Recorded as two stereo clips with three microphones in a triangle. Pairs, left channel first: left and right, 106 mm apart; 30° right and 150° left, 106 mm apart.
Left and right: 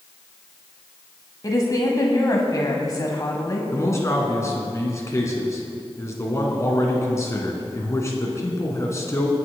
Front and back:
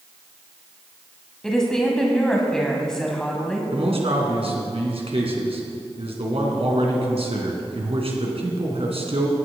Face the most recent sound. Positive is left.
turn(degrees=150)